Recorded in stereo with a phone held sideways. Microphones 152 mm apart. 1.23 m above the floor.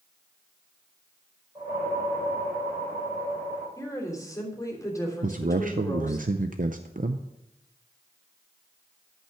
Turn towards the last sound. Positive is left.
turn(degrees=-65)  # may be behind; listen again after turning